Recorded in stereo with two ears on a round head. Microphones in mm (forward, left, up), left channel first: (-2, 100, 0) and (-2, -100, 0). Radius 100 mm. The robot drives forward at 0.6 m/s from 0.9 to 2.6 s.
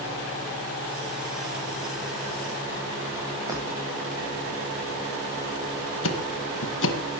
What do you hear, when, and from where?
3.5 s breaking glass: 15° right (ahead or behind), 9.5 m
6.0 s ticking: 60° left (ahead or behind), 1.8 m